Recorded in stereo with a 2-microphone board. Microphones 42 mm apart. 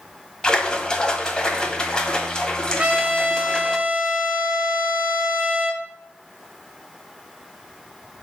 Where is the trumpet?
30° right (ahead or behind), 1.5 m.